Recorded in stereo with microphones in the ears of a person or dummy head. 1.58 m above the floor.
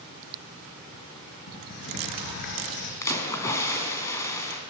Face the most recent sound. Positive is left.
turn(degrees=20)  # may be behind; listen again after turning